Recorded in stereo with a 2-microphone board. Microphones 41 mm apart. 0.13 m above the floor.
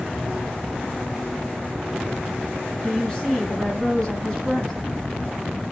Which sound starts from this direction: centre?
A woman speaking, at 2.8 s.